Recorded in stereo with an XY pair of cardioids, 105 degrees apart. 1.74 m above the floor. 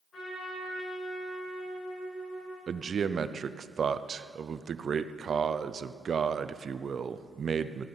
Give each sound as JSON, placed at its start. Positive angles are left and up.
{"t": 0.1, "sound": "a trumpet", "azimuth_deg": 55, "distance_m": 5.5}
{"t": 2.7, "sound": "a man speaking", "azimuth_deg": -40, "distance_m": 0.7}